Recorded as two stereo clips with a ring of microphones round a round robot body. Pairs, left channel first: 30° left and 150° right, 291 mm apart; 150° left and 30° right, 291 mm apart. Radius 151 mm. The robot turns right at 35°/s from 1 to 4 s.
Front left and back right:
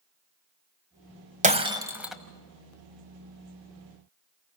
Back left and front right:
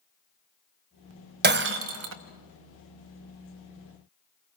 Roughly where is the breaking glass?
Right.